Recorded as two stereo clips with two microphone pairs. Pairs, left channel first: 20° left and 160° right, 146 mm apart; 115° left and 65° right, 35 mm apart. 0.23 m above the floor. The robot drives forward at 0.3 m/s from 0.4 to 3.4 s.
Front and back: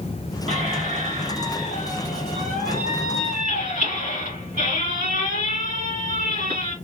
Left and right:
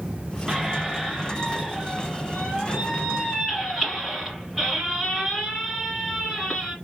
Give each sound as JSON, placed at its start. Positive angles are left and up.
{"t": 0.5, "sound": "a squeak", "azimuth_deg": -140, "distance_m": 1.5}